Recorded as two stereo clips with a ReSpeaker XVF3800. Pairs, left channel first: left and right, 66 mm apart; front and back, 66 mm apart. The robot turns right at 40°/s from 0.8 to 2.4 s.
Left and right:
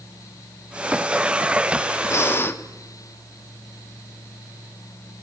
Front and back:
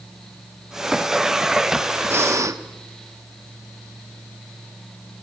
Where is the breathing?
130° left, 1.3 m; by 2.6 s 145° left, 1.3 m.